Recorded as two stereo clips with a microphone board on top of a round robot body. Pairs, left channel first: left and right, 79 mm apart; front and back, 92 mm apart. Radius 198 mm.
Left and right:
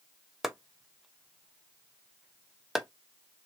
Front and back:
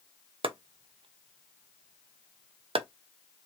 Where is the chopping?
175° right, 0.8 m.